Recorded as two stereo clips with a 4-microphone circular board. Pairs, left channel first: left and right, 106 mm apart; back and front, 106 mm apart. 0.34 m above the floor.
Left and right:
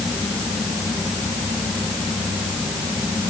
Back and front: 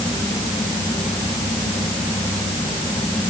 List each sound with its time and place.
Only background noise.